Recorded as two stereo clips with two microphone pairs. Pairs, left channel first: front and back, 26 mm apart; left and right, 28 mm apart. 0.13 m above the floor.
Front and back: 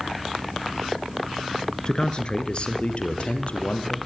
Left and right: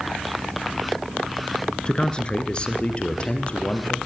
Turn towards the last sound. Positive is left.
turn(degrees=35)